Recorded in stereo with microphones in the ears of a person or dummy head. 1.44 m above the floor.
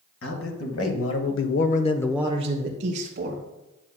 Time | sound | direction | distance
0.2 | a man speaking | 80° left | 2.0 m